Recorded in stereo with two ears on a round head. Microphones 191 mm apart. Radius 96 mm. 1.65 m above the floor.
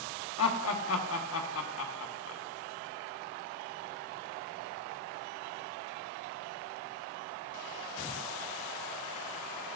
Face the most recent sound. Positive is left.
turn(degrees=70)  # may be behind; listen again after turning